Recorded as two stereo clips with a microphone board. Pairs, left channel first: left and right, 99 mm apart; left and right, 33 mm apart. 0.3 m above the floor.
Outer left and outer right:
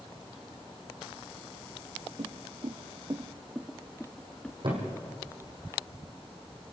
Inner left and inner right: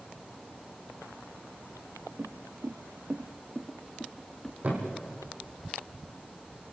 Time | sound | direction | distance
2.2 | footsteps | 75° right (ahead or behind) | 1.1 m
4.6 | a thud | 50° right (ahead or behind) | 5 m